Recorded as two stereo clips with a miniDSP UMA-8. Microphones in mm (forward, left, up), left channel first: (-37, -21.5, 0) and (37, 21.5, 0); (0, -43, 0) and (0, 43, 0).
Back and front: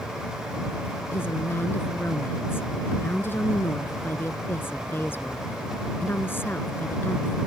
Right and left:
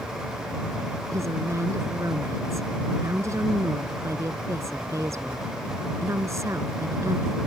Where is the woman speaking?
145° left.